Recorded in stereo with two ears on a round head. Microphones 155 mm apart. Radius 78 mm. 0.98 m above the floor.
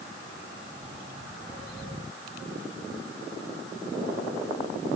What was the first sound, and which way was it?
Only background noise.